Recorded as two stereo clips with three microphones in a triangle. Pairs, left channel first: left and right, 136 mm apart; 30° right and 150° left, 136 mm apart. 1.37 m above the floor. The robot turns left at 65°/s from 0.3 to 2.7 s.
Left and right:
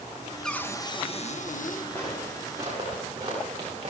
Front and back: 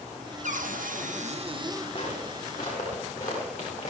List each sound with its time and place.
0.4 s a cupboard door: 175° left, 0.9 m; by 1.9 s 85° left, 0.9 m
1.9 s footsteps: 15° left, 7 m; by 3.9 s 40° right, 8.5 m